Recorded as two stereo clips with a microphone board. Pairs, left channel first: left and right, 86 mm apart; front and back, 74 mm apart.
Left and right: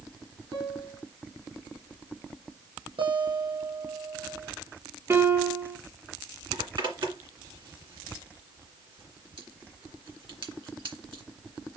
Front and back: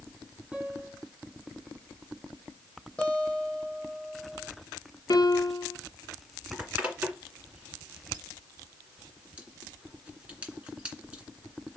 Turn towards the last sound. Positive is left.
turn(degrees=-110)